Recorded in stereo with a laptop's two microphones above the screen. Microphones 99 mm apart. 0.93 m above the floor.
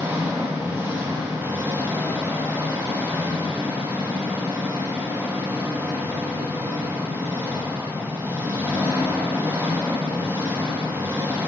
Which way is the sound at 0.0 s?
25° right (ahead or behind).